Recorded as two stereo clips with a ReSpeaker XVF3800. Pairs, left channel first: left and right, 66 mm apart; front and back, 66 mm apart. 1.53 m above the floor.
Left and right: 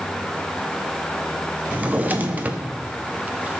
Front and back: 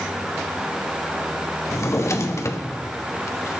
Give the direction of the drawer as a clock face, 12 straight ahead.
1 o'clock.